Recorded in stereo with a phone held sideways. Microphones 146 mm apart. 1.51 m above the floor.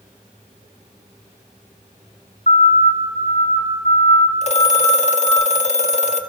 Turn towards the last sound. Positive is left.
turn(degrees=50)  # may be behind; listen again after turning